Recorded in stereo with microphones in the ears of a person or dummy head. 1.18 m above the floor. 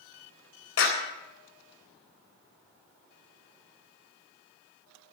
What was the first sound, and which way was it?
A clap, 75° left (ahead or behind).